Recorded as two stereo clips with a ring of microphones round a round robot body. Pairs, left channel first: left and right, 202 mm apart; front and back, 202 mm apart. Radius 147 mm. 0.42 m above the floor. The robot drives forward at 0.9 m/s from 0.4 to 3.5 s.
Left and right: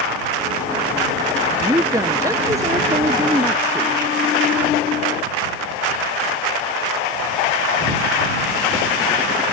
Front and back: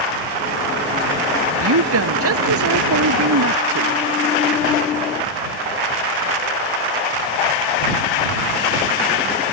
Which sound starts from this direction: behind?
A woman speaking, at 1.6 s.